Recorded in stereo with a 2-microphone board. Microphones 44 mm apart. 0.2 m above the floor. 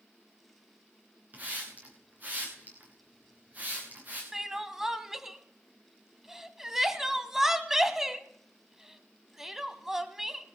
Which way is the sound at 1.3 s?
40° right (ahead or behind).